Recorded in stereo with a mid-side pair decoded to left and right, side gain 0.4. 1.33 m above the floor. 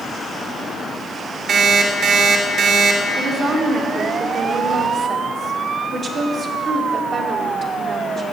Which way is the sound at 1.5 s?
65° right.